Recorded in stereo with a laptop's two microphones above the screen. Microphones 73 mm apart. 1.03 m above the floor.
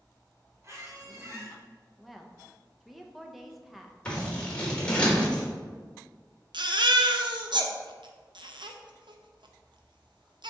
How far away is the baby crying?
About 0.6 m.